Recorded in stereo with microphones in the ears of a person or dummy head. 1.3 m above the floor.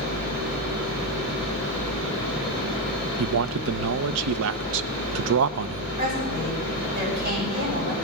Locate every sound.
3.2 s a man speaking: 75° right (ahead or behind), 0.6 m
6.0 s a woman speaking: 40° right (ahead or behind), 9.5 m